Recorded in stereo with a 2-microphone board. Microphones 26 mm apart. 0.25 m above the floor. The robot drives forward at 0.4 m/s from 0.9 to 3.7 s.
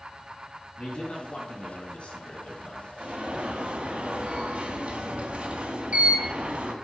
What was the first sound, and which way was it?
A man speaking, 40° left (ahead or behind).